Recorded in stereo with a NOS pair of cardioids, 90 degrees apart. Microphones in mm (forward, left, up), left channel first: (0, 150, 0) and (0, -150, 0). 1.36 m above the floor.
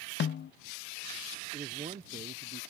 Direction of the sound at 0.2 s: 40° left.